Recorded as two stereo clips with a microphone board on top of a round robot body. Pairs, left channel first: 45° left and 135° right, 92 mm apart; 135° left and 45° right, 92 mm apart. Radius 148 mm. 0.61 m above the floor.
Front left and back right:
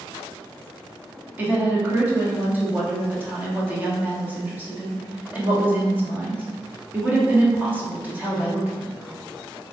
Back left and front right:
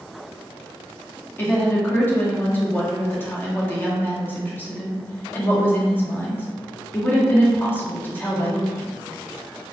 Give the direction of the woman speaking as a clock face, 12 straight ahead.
6 o'clock.